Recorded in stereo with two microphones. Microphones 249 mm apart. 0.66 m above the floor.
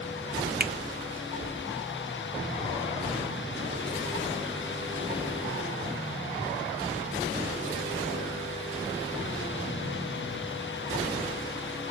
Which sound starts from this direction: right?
A finger snap, at 0.6 s.